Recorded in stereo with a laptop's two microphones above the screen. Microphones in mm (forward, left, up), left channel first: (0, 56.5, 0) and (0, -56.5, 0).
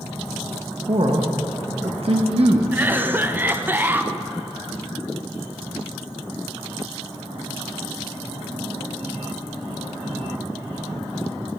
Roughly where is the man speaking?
Right.